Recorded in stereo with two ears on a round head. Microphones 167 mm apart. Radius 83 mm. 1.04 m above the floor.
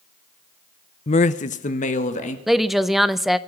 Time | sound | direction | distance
1.1 | a man speaking | 35° left (ahead or behind) | 0.7 m
2.5 | a woman speaking | centre (ahead or behind) | 0.6 m